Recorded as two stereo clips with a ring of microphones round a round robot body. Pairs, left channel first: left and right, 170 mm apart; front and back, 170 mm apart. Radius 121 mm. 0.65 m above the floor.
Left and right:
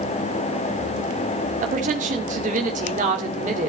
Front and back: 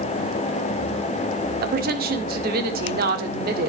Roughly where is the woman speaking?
Behind right.